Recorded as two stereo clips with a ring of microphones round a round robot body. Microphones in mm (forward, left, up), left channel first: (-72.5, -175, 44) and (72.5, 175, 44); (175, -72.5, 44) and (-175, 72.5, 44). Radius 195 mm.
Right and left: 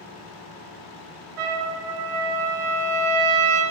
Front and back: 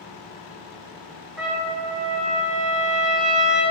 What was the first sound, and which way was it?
A trumpet, 70° left.